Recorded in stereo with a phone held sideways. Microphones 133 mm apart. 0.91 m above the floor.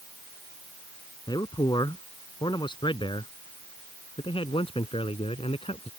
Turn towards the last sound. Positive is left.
turn(degrees=45)  # may be behind; listen again after turning